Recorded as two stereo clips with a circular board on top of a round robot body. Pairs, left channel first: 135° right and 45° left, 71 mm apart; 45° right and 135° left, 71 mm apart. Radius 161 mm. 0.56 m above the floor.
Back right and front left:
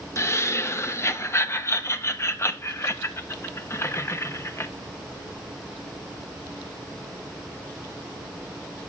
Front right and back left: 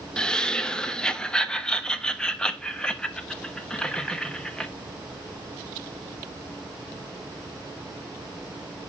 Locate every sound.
0.2 s laughter: 115° right, 1.2 m